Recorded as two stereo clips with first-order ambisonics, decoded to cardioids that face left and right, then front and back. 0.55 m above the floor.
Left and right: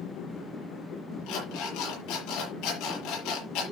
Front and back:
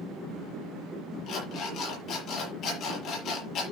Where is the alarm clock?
50° left, 6.5 m.